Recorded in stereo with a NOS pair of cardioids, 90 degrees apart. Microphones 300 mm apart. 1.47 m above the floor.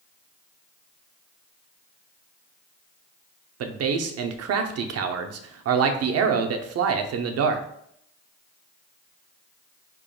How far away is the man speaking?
About 0.7 m.